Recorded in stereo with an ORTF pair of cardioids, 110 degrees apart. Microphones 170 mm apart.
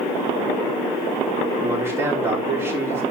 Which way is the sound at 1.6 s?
15° right.